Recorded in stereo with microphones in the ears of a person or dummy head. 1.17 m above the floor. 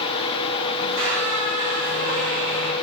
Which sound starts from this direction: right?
A squeak, at 0.8 s.